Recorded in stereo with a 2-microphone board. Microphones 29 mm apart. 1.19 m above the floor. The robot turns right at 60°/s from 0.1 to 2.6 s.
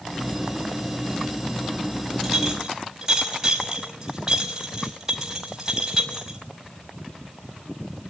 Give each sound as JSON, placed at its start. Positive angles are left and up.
{"t": 2.2, "sound": "a clink", "side_deg": 5, "distance_m": 5.5}